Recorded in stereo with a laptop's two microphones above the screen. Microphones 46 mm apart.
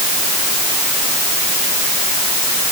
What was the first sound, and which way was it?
Only background noise.